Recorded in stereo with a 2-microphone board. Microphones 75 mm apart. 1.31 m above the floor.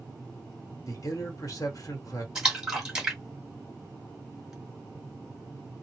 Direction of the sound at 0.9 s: 50° left (ahead or behind).